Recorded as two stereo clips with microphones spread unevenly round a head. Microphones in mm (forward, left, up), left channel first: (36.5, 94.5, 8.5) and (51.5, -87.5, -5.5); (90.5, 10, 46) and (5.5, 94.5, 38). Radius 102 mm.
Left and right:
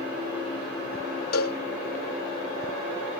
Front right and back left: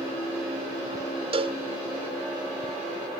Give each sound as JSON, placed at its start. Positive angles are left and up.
{"t": 1.3, "sound": "a cowbell", "azimuth_deg": 95}